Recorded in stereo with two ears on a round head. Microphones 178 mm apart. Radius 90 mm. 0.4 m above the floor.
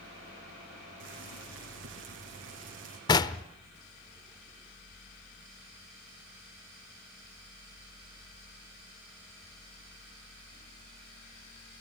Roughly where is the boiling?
Right.